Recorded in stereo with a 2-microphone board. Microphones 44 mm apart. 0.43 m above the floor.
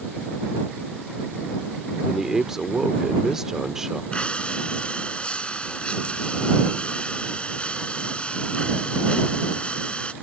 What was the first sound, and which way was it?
A man speaking, 10° right (ahead or behind).